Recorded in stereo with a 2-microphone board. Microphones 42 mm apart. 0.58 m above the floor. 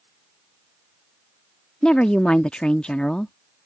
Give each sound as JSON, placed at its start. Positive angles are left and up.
{"t": 1.8, "sound": "a woman speaking", "side_deg": 20}